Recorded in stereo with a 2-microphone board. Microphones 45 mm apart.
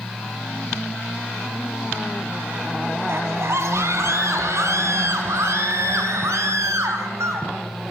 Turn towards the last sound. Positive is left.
turn(degrees=-75)  # may be behind; listen again after turning